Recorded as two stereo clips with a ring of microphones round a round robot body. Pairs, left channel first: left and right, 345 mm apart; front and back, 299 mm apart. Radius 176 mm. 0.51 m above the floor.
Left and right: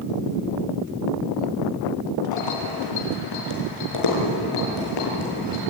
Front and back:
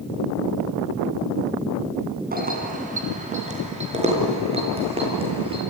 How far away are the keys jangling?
About 3 m.